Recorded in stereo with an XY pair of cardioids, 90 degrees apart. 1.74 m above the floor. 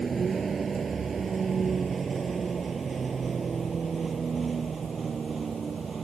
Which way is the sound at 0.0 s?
40° right.